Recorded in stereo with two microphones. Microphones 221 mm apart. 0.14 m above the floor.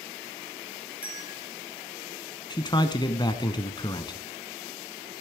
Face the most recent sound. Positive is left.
turn(degrees=20)  # may be behind; listen again after turning